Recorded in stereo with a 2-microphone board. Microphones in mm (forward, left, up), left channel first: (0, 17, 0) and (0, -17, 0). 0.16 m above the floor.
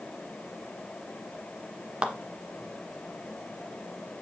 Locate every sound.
2.0 s a clap: 30° right (ahead or behind), 1.3 m